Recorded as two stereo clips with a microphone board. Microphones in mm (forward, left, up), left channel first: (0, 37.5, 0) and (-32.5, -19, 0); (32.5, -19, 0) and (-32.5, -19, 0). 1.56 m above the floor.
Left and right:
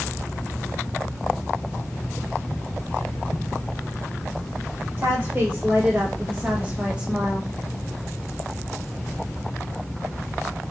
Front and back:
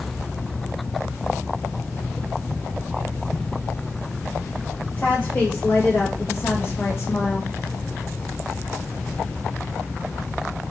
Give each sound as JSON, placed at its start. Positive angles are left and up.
{"t": 5.0, "sound": "a woman speaking", "azimuth_deg": -65, "distance_m": 2.5}